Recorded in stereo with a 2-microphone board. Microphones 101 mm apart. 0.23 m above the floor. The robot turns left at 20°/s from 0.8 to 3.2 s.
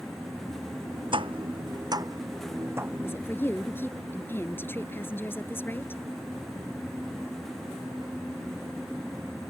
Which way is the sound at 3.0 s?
25° left (ahead or behind).